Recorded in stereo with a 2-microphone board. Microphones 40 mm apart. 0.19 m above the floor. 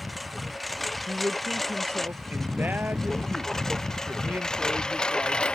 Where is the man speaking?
45° right (ahead or behind).